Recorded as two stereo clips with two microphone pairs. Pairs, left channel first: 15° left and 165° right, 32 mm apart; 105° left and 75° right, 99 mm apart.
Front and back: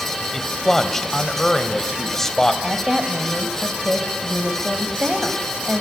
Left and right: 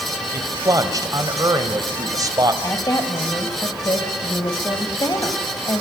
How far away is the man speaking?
About 1.8 m.